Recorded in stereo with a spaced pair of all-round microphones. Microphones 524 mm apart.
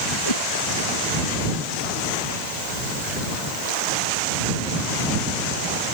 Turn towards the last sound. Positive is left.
turn(degrees=70)  # may be behind; listen again after turning